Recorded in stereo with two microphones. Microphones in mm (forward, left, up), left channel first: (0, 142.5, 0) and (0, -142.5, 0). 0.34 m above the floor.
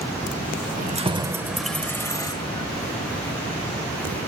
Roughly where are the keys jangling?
Right.